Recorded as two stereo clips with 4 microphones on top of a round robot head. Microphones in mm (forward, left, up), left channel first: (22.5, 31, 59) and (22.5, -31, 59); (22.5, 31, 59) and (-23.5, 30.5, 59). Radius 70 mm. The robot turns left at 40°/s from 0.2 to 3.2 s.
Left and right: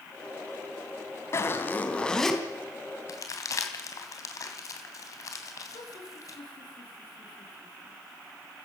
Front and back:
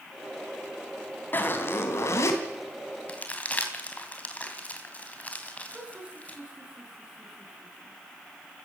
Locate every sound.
1.3 s a zipper: 45° left, 3 m; by 2.4 s straight ahead, 3 m
3.1 s crumpling: 60° left, 3 m; by 6.4 s 55° left, 3 m
5.7 s laughter: 110° left, 6.5 m